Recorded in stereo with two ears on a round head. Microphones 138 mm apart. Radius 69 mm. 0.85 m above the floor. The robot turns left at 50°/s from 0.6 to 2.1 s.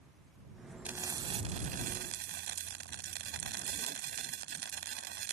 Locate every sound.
0.8 s frying: 10° right; by 5.3 s 70° right